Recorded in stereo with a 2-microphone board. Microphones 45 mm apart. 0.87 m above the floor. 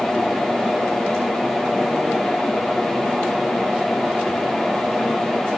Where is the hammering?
No hammering in this recording.